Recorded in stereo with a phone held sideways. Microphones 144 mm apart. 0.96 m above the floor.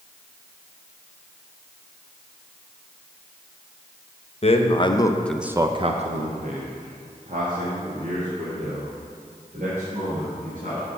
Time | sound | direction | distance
4.4 | a man speaking | 45° left (ahead or behind) | 0.9 m